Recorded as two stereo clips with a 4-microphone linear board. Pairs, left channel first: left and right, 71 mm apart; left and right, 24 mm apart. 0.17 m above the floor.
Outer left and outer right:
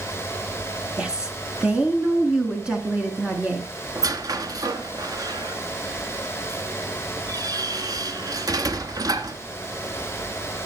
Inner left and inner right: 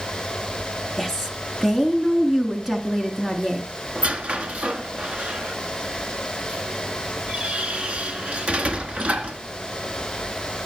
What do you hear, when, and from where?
1.0 s a woman speaking: 15° right (ahead or behind), 2 m
4.0 s a squeak: 60° right (ahead or behind), 1.1 m